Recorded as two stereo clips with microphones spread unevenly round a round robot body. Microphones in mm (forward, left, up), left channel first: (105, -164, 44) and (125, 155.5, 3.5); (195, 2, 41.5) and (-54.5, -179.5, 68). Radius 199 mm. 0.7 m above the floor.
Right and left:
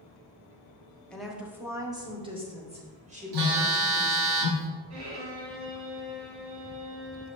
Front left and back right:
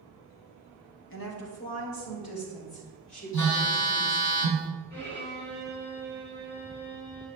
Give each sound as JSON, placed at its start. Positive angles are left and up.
{"t": 1.1, "sound": "a woman speaking", "azimuth_deg": 0, "distance_m": 1.4}
{"t": 3.3, "sound": "a phone buzzing", "azimuth_deg": 85, "distance_m": 1.4}
{"t": 4.9, "sound": "a violin", "azimuth_deg": 90, "distance_m": 2.5}